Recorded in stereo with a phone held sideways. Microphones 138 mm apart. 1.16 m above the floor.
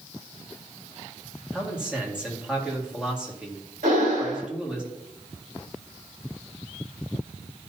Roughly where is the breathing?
Right.